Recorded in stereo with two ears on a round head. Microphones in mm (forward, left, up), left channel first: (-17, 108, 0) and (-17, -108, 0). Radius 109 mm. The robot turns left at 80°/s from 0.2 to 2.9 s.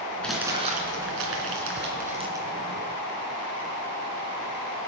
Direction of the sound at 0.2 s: 5° left (ahead or behind).